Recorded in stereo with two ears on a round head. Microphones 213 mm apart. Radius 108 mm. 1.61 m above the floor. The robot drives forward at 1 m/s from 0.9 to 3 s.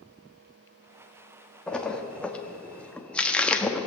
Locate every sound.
1.7 s a splash: 5° left (ahead or behind), 1.3 m